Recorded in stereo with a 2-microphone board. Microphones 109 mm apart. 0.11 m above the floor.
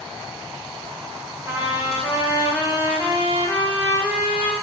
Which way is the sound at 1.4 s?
20° right (ahead or behind).